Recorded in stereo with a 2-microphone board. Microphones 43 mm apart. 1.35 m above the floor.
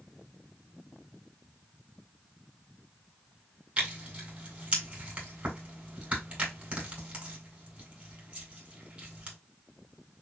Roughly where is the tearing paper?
Right.